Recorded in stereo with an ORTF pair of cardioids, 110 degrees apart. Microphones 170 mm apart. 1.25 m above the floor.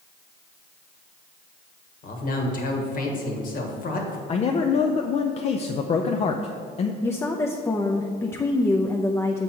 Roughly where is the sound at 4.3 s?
Ahead left.